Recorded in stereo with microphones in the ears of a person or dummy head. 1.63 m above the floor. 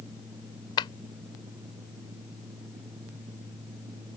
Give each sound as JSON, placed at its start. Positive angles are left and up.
{"t": 0.8, "sound": "a clap", "side_deg": 30}